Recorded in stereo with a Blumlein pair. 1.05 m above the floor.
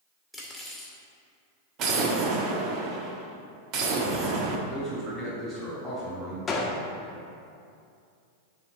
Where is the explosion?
35° right, 1.1 m.